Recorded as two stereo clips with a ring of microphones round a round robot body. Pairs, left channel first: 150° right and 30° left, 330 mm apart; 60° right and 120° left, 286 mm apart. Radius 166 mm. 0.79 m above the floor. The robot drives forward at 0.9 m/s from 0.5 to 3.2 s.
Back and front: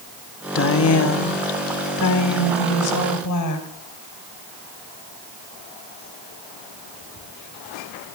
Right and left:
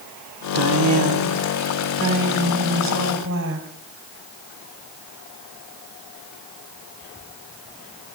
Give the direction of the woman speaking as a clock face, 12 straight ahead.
7 o'clock.